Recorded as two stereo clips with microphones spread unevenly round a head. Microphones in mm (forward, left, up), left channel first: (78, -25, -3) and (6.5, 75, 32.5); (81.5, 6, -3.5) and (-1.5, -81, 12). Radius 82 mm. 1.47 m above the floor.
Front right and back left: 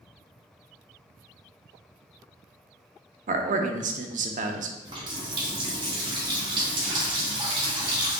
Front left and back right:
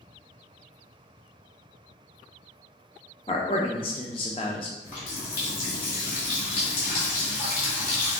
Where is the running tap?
85° left, 1.4 m.